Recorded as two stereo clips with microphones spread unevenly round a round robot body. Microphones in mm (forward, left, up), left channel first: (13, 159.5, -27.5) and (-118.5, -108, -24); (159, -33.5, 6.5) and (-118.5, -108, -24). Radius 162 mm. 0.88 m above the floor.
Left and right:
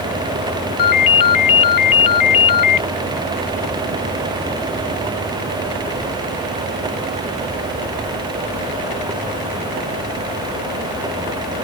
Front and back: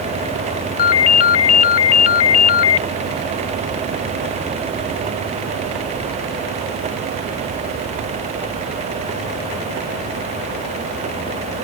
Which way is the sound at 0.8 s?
25° left.